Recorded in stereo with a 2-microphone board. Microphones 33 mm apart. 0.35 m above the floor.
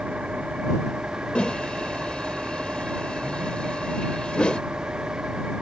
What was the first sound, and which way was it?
An engine running, 40° right (ahead or behind).